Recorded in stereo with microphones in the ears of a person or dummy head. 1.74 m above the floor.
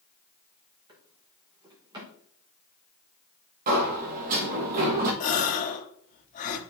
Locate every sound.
0.9 s a drawer: 15° right (ahead or behind), 1.1 m
3.7 s a sliding door: 40° right (ahead or behind), 1.4 m
5.2 s a gasp: 40° left (ahead or behind), 1.0 m